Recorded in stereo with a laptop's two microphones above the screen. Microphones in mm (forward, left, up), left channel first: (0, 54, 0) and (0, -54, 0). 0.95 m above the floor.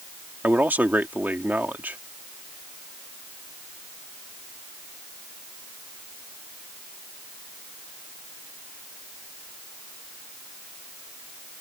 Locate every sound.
0.4 s a man speaking: 15° right (ahead or behind)